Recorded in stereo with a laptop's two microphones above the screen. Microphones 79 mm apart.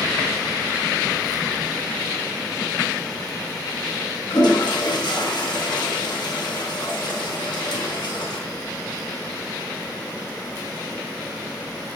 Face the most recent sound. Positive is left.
turn(degrees=65)  # may be behind; listen again after turning